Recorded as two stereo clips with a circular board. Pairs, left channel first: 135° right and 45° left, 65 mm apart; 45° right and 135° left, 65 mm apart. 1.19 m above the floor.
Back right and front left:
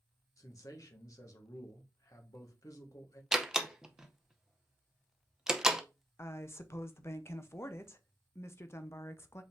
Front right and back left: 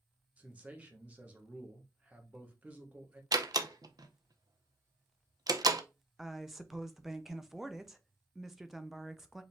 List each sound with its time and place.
0.4 s a man speaking: 160° right, 1.2 m
3.3 s a door slam: 125° left, 0.6 m
6.2 s a woman speaking: 140° right, 0.6 m